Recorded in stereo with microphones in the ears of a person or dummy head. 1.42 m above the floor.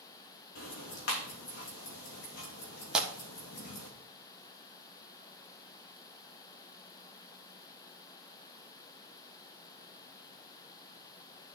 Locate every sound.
0.6 s ticking: 65° left (ahead or behind), 2.5 m
2.9 s tearing paper: 5° right (ahead or behind), 1.2 m